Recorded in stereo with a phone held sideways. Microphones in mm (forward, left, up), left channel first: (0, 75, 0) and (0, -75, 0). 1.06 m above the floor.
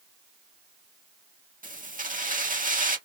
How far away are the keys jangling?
About 1.3 m.